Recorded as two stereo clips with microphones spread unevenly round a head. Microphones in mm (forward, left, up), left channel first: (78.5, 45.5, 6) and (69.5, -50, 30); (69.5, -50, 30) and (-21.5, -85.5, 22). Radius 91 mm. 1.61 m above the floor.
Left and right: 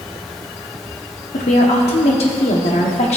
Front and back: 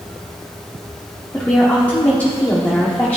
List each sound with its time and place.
1.3 s a woman speaking: 100° left, 1.2 m